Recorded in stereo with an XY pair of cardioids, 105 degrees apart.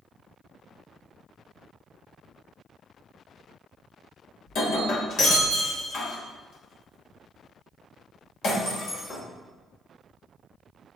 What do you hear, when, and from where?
4.5 s breaking glass: 70° left, 3 m